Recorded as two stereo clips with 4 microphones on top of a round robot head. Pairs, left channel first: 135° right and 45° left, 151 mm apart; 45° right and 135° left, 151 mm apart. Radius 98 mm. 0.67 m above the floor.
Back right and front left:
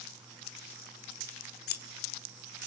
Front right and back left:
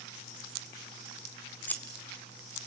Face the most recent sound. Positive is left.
turn(degrees=-125)